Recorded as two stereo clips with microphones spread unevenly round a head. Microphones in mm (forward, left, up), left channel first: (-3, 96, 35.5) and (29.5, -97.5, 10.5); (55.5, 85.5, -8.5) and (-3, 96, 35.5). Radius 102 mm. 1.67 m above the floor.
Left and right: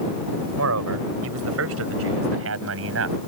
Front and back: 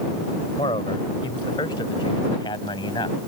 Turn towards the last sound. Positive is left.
turn(degrees=-55)